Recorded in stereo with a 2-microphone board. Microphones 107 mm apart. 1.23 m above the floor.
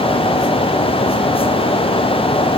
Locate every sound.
Only background noise.